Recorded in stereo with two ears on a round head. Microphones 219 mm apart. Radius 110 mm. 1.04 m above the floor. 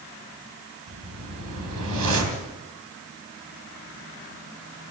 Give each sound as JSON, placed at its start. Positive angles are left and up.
{"t": 0.9, "sound": "a whoosh", "side_deg": -85, "distance_m": 3.5}